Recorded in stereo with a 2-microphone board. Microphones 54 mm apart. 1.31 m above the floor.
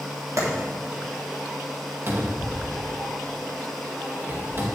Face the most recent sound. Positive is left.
turn(degrees=-45)  # may be behind; listen again after turning